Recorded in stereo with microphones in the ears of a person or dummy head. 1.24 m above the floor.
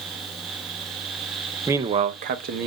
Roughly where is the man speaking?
Centre.